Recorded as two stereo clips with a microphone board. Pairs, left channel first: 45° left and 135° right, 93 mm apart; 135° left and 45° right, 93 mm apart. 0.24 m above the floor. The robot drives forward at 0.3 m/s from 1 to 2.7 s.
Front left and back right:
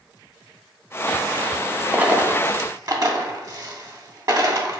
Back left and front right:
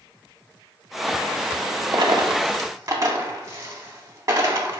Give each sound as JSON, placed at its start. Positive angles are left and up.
{"t": 1.9, "sound": "a dropped coin", "azimuth_deg": -65, "distance_m": 0.5}